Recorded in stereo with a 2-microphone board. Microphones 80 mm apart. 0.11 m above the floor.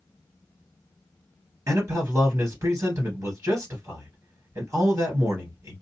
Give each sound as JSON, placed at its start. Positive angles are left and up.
{"t": 1.7, "sound": "a man speaking", "side_deg": -40, "distance_m": 1.9}